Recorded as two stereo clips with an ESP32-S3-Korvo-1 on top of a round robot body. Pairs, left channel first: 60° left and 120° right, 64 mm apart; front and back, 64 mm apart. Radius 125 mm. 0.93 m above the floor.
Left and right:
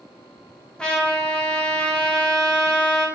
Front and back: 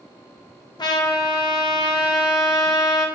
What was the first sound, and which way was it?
A trumpet, 20° right.